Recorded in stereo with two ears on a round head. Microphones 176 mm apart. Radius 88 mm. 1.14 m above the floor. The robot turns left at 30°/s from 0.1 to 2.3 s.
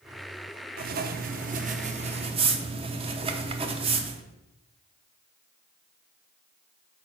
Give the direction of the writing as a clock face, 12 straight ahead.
3 o'clock.